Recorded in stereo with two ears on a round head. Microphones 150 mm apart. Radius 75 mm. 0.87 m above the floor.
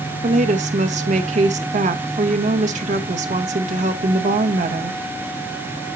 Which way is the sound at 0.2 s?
45° right (ahead or behind).